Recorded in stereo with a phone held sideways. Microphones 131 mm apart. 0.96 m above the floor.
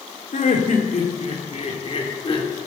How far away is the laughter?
About 3.5 m.